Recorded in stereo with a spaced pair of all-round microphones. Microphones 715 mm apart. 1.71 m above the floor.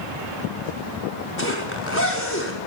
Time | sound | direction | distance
1.4 | a zipper | 15° left (ahead or behind) | 6 m